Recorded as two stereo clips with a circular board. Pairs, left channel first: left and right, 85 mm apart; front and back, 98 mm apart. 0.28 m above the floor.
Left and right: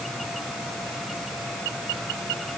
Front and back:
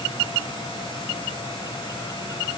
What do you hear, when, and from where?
Only background noise.